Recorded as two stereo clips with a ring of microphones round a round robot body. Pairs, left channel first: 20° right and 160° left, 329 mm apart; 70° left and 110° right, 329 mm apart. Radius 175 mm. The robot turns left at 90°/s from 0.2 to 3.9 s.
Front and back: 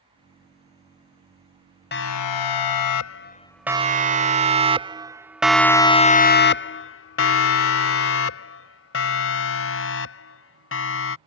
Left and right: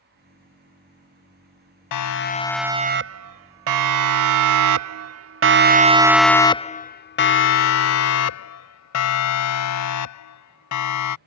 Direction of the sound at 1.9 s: 40° left.